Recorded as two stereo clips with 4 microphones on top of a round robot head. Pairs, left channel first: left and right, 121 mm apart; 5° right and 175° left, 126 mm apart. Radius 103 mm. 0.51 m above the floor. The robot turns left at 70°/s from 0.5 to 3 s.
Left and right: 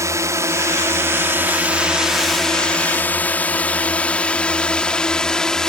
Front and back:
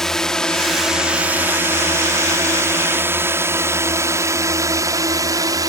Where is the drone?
85° right; by 5.7 s 170° left.